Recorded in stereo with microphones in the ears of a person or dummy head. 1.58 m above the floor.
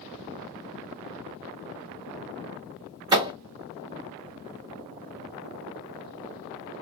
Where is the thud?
25° right (ahead or behind), 0.9 m.